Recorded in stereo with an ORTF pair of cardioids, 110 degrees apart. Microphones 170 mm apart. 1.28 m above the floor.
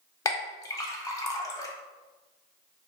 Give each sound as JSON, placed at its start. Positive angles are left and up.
{"t": 0.2, "sound": "a clink", "azimuth_deg": 20, "distance_m": 0.6}